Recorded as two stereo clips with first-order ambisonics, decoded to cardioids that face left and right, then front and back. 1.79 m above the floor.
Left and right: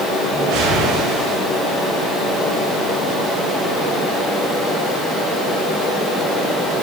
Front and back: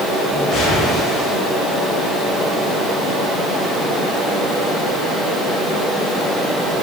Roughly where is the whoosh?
Ahead right.